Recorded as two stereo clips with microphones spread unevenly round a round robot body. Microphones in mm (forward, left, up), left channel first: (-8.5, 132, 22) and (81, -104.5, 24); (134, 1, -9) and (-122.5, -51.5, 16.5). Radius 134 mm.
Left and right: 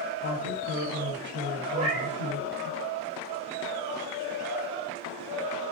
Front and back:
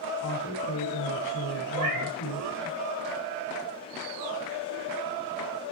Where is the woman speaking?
25° right, 6.5 m.